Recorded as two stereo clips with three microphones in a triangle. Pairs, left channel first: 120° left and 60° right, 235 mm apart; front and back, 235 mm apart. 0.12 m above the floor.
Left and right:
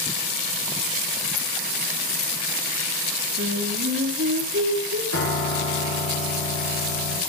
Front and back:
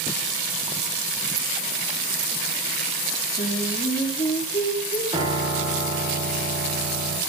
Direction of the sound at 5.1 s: 110° left.